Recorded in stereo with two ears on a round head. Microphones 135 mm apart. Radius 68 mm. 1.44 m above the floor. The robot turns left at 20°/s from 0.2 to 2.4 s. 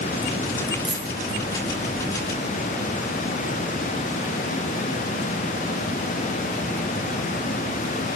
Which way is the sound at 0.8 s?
Centre (ahead or behind).